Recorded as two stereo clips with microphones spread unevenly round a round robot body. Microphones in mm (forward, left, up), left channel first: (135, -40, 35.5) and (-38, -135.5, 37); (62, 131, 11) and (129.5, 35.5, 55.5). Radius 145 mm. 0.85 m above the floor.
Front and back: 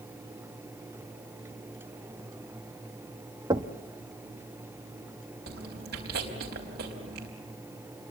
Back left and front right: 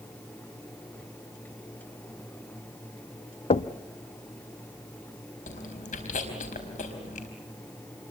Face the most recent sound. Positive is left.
turn(degrees=150)